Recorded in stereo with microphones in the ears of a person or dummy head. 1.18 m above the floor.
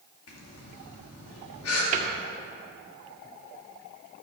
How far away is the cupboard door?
About 1.8 m.